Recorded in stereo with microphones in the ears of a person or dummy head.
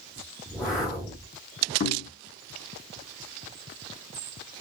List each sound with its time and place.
0.5 s a whoosh: 5° left (ahead or behind), 0.9 m
1.8 s knocking: 40° left (ahead or behind), 0.7 m